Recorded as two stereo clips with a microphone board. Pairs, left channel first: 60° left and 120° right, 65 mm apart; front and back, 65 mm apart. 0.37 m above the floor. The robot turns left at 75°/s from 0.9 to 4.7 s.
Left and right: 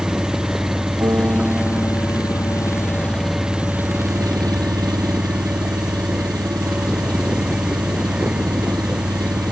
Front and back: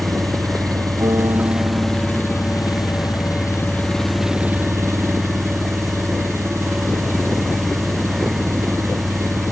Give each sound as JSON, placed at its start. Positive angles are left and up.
{"t": 0.0, "sound": "an engine running", "azimuth_deg": 155}
{"t": 1.0, "sound": "a piano", "azimuth_deg": -155}